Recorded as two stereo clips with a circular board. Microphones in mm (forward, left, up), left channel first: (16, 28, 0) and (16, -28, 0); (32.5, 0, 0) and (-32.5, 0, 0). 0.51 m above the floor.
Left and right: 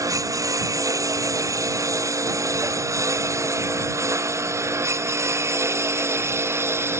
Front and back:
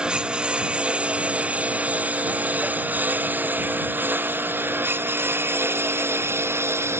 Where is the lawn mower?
105° right; by 7.0 s 130° right.